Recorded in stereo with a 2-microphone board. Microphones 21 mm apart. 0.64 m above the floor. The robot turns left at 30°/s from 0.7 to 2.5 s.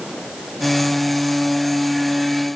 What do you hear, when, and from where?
Only background noise.